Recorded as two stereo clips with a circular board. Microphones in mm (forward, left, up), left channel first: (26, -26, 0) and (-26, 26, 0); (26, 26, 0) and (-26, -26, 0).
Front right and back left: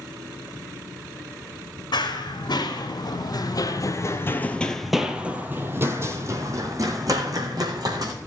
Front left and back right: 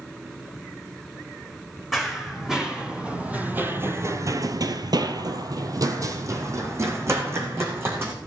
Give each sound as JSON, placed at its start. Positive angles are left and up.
{"t": 1.9, "sound": "running footsteps", "azimuth_deg": -45, "distance_m": 2.5}